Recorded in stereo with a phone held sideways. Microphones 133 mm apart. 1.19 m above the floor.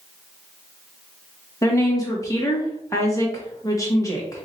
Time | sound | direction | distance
1.6 | a woman speaking | 25° left (ahead or behind) | 1.4 m